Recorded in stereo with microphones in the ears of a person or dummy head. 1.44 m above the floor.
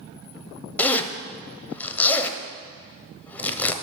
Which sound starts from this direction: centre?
A zipper, at 0.8 s.